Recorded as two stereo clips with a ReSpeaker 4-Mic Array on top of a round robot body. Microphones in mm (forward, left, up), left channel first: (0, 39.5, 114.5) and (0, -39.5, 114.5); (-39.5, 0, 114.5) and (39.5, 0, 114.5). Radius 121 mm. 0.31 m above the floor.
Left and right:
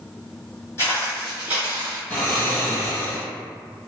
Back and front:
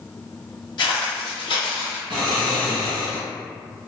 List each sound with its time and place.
0.8 s footsteps: 150° left, 0.6 m; by 2.0 s 125° right, 0.6 m
2.1 s snoring: 25° left, 1.2 m